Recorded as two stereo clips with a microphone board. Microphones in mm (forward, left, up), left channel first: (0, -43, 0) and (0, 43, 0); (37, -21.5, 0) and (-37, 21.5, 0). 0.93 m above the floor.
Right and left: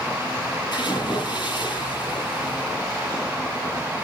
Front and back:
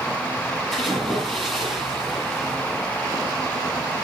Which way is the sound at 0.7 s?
125° right.